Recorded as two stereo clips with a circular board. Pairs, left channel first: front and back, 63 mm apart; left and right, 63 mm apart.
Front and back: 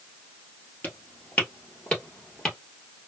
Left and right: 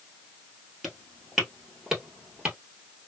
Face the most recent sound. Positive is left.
turn(degrees=-65)